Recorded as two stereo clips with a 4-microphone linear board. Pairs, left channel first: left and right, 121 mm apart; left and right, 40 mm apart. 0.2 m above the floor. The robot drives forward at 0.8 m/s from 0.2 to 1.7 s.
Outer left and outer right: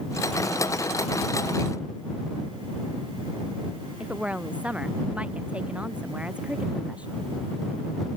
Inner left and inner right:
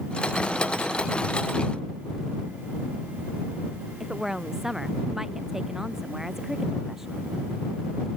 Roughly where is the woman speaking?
Centre.